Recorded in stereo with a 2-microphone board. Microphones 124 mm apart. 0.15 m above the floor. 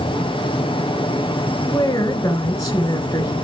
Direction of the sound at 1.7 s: 30° left (ahead or behind).